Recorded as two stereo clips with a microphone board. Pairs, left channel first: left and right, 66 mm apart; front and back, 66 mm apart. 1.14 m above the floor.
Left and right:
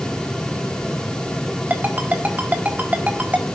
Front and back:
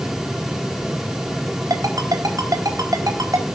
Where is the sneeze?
I don't hear a sneeze.